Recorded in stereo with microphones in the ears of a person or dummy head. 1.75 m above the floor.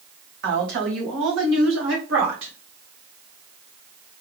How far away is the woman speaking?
About 1.1 m.